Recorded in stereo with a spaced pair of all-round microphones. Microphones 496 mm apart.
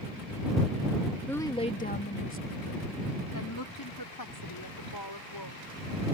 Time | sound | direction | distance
1.3 | a woman speaking | 5° left (ahead or behind) | ?